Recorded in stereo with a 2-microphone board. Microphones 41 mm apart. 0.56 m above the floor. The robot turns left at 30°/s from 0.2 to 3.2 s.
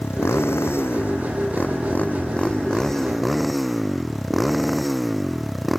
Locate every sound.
0.0 s a motorcycle: 90° left; by 5.8 s straight ahead